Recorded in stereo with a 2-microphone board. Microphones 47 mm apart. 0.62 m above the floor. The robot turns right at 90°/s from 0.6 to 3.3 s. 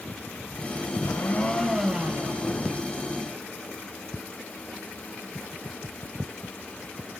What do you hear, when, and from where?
1.0 s a blender: 110° left, 2.5 m; by 2.4 s 120° right, 2.5 m